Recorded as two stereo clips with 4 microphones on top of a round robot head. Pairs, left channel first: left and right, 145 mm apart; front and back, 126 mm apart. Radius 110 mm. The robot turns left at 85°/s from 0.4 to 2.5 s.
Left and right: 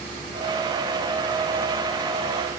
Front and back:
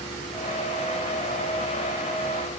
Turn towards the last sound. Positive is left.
No sound to turn to.